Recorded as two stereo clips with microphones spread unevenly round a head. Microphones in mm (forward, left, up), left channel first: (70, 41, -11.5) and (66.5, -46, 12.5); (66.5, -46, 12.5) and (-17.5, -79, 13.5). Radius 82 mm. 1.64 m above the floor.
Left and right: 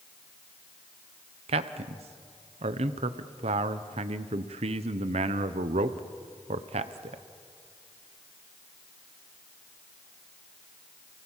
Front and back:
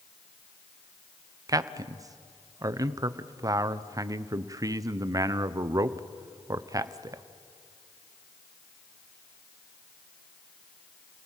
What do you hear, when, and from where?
1.5 s a man speaking: 105° right, 1.0 m